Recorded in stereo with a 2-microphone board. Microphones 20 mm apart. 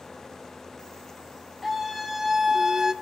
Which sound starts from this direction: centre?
A scream, at 1.6 s.